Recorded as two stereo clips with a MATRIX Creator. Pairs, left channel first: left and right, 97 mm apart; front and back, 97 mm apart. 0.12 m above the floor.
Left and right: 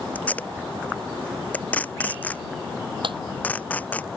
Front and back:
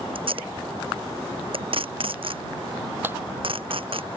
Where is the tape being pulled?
165° left.